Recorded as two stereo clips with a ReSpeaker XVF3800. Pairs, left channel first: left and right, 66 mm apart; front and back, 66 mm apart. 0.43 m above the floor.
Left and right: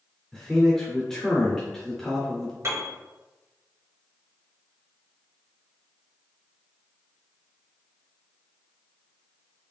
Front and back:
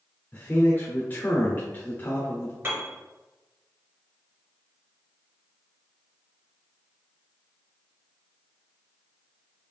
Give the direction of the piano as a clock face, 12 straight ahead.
4 o'clock.